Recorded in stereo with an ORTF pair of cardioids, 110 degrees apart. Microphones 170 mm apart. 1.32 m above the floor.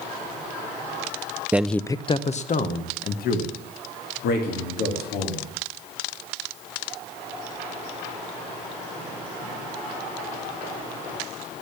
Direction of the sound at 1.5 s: 10° right.